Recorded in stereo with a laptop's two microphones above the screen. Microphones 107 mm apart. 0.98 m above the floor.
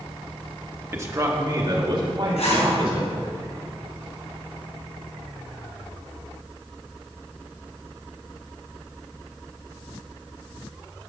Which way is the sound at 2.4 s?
80° left.